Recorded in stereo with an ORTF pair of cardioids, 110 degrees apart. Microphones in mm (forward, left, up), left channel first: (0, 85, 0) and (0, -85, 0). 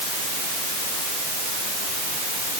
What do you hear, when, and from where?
Only background noise.